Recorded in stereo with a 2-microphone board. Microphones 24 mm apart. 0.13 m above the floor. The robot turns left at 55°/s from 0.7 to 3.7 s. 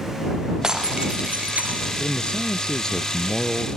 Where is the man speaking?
75° left; by 3.7 s 15° right.